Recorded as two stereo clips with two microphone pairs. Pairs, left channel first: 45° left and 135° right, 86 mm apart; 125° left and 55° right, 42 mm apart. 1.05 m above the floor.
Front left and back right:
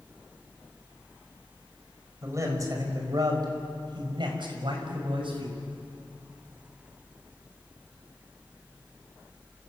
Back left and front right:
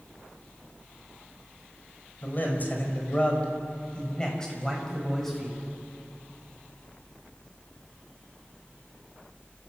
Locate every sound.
2.2 s a man speaking: 170° left, 5.5 m; by 5.6 s 150° right, 6.5 m